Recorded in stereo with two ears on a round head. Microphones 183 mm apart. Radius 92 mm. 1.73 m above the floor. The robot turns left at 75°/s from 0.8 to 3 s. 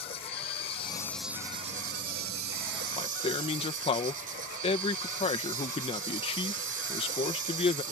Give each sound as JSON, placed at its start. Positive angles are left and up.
{"t": 0.0, "sound": "an insect", "azimuth_deg": 30}
{"t": 3.0, "sound": "a man speaking", "side_deg": 25}